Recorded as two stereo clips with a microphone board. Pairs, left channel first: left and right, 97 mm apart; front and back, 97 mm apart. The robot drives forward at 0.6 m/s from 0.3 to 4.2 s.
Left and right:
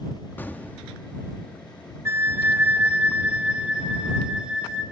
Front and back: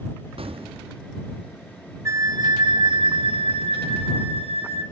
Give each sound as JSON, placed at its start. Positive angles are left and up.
{"t": 0.4, "sound": "an explosion", "azimuth_deg": 160, "distance_m": 1.1}
{"t": 2.0, "sound": "a flute", "azimuth_deg": -140, "distance_m": 0.6}